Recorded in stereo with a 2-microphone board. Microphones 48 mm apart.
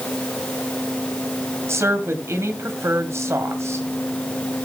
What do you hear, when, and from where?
1.7 s a woman speaking: 70° right (ahead or behind), 2.5 m